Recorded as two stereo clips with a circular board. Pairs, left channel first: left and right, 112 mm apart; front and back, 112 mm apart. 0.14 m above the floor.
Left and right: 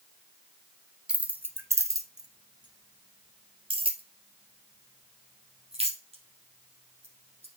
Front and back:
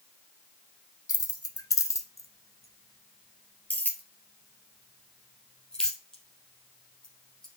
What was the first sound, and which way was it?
Keys jangling, 15° right.